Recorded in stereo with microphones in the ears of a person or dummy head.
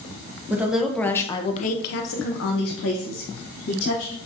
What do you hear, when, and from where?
0.5 s a woman speaking: 10° right (ahead or behind), 1.0 m; by 4.2 s 60° left (ahead or behind), 2.0 m